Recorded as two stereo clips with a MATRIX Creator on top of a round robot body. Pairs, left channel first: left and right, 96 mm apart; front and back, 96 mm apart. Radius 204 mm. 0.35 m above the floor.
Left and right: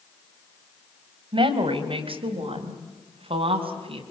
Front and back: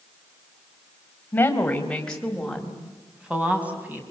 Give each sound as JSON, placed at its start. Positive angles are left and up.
{"t": 1.3, "sound": "a woman speaking", "azimuth_deg": -70, "distance_m": 3.5}